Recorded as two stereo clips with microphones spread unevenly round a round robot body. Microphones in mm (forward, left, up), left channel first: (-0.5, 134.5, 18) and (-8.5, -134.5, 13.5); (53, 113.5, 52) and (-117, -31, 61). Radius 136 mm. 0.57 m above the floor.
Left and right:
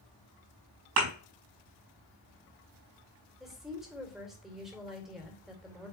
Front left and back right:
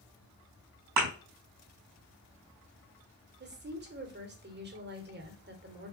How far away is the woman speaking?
About 2.5 m.